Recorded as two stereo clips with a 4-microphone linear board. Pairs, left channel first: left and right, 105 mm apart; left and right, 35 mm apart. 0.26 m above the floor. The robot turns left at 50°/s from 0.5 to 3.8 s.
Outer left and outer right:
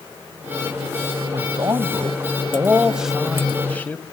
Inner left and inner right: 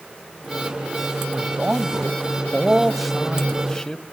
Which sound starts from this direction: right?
A man speaking, at 1.3 s.